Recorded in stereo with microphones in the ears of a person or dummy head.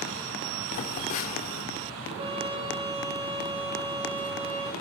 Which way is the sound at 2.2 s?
30° right (ahead or behind).